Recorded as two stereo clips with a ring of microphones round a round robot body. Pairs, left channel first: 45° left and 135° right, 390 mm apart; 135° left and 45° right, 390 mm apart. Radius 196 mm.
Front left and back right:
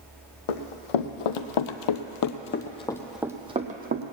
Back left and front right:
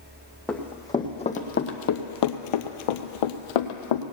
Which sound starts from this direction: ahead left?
Running footsteps, at 0.5 s.